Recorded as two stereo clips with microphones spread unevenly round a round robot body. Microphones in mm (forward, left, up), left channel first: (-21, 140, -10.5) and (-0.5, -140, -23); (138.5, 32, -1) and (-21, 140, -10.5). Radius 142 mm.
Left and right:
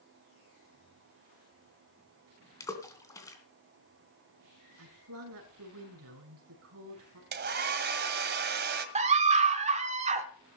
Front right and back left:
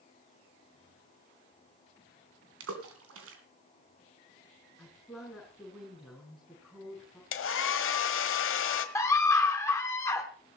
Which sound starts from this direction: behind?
A splash, at 2.6 s.